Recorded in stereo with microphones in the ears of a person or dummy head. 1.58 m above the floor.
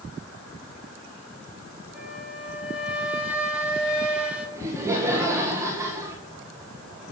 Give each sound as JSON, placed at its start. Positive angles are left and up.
{"t": 1.9, "sound": "a flute", "side_deg": -5, "distance_m": 3.5}
{"t": 4.6, "sound": "laughter", "side_deg": -20, "distance_m": 2.0}